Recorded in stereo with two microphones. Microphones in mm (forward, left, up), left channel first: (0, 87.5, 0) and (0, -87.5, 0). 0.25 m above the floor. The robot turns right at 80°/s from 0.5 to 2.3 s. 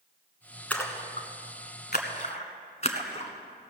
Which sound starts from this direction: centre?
A splash, at 0.7 s.